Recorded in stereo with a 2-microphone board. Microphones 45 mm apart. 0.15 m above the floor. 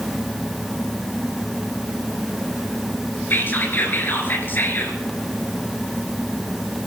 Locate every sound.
3.3 s whispering: 50° left (ahead or behind), 3 m